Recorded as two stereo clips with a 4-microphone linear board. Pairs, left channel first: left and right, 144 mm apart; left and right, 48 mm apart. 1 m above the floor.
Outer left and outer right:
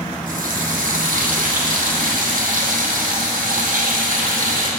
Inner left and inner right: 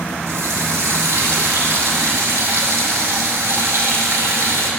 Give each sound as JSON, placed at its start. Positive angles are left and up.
{"t": 0.3, "sound": "a running tap", "side_deg": -80, "distance_m": 0.8}